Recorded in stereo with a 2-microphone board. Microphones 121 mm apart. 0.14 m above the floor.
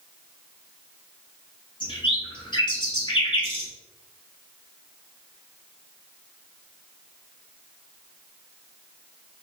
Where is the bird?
40° left (ahead or behind), 2 m.